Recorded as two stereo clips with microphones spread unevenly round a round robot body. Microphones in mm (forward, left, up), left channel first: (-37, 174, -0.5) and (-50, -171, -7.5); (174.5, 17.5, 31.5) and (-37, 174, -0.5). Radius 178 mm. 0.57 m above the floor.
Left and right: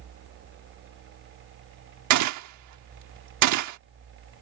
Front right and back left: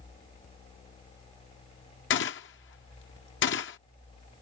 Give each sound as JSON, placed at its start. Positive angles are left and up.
{"t": 2.1, "sound": "a gunshot", "azimuth_deg": -80}